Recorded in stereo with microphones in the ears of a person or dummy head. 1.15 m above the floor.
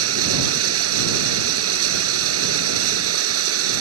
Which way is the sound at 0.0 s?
80° right.